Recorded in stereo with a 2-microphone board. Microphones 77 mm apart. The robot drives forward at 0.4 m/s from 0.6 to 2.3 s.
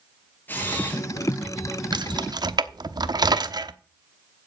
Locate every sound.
0.5 s a camera shutter: 25° left (ahead or behind), 4 m
1.9 s keys jangling: 65° right (ahead or behind), 0.9 m; by 3.7 s 60° right (ahead or behind), 0.9 m